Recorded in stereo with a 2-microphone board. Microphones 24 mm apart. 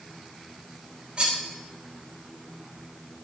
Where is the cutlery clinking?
40° right (ahead or behind), 3.5 m.